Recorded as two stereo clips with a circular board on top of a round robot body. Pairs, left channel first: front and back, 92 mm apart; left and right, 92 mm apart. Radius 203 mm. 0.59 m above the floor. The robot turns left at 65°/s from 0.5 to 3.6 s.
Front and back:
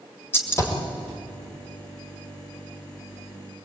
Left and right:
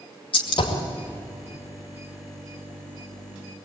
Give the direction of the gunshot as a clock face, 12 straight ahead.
10 o'clock.